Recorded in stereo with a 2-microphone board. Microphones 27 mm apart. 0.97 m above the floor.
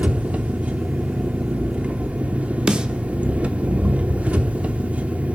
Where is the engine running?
65° right (ahead or behind), 0.8 m.